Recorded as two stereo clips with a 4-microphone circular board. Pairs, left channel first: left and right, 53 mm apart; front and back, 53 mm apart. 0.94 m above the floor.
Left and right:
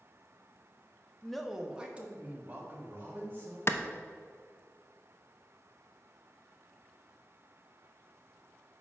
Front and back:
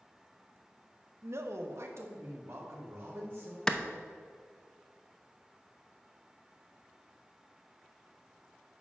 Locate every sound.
1.2 s a man speaking: 170° left, 0.7 m; by 3.6 s 140° right, 3 m
3.7 s a clap: 70° left, 0.5 m